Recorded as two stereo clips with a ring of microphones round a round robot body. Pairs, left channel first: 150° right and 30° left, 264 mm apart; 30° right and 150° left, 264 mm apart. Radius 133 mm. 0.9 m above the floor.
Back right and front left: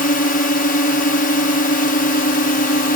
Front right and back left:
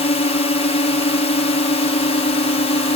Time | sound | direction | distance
0.0 | a drone | 95° right | ?